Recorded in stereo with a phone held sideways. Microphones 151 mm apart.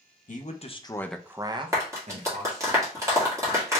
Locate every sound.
0.3 s a man speaking: 60° left (ahead or behind), 0.8 m; by 2.7 s 60° right (ahead or behind), 1.4 m
1.7 s a clap: 20° right (ahead or behind), 1.7 m